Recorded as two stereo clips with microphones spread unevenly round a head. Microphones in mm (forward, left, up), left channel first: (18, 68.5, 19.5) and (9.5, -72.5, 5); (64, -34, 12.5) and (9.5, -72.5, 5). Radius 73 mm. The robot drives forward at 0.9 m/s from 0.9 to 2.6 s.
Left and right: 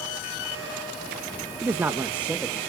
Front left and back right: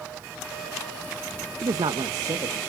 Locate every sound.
1.6 s a man speaking: 165° right, 0.6 m; by 2.6 s 175° right, 1.4 m